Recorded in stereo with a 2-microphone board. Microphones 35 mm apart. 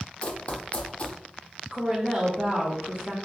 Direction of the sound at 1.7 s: 20° right (ahead or behind).